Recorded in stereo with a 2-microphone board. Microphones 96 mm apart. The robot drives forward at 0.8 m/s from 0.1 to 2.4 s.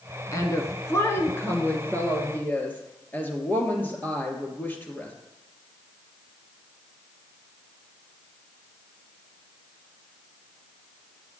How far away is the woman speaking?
About 1.4 m.